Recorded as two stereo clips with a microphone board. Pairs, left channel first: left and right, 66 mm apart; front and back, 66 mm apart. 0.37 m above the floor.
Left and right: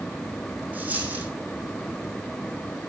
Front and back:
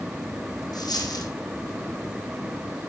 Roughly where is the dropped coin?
Ahead.